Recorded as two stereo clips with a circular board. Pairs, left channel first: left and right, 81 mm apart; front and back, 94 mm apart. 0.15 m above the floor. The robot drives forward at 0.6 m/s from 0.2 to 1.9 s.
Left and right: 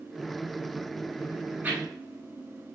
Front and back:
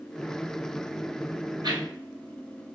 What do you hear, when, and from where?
1.6 s a whoosh: 155° right, 0.7 m; by 2.8 s 160° right, 0.9 m